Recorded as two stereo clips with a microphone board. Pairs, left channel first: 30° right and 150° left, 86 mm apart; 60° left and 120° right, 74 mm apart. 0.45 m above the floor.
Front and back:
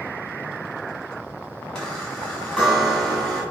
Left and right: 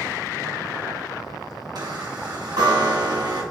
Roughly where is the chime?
Behind right.